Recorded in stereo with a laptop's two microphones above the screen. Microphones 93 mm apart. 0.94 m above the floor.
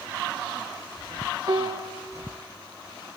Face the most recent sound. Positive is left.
turn(degrees=-50)  # may be behind; listen again after turning